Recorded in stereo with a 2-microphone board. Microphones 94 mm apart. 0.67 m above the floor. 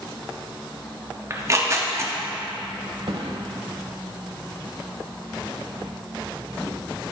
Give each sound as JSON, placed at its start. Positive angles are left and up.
{"t": 1.3, "sound": "tearing paper", "side_deg": -35, "distance_m": 0.8}
{"t": 3.1, "sound": "a thud", "side_deg": -75, "distance_m": 1.0}